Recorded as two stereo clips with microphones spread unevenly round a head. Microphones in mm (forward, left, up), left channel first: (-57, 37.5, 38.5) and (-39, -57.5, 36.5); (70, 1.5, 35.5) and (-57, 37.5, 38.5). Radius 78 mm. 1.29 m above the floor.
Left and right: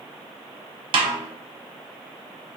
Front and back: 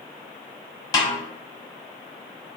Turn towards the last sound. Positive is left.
turn(degrees=-75)